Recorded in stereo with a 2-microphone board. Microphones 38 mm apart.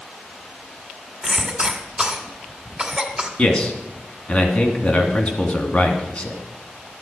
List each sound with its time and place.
1.2 s a cough: 30° right (ahead or behind), 1.9 m
3.4 s a man speaking: 30° left (ahead or behind), 2 m